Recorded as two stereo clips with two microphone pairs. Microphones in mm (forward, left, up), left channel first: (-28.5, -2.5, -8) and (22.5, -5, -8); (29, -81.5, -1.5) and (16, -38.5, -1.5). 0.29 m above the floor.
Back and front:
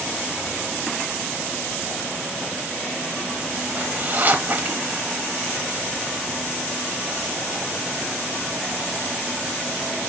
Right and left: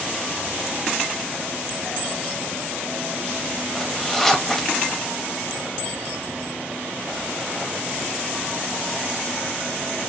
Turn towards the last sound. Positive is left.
turn(degrees=-5)